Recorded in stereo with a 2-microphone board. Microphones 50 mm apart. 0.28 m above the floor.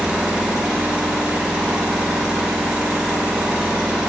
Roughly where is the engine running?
Centre.